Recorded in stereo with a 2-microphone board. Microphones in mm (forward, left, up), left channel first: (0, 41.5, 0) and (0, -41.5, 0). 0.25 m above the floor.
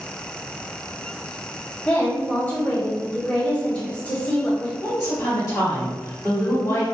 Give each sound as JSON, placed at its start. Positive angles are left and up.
{"t": 1.9, "sound": "a woman speaking", "side_deg": 20, "distance_m": 1.0}
{"t": 4.8, "sound": "a woman speaking", "side_deg": 40, "distance_m": 1.8}